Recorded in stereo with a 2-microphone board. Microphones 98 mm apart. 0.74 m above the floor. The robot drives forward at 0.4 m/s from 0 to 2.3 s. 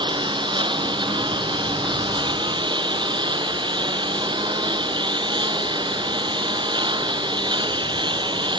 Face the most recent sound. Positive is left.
turn(degrees=-50)  # may be behind; listen again after turning